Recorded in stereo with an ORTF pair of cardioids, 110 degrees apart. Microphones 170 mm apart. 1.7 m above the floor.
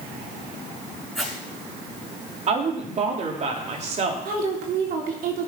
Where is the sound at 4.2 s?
60° right, 3.5 m.